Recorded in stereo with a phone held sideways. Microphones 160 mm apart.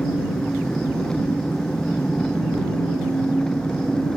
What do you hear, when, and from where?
0.0 s an engine running: 5° left (ahead or behind)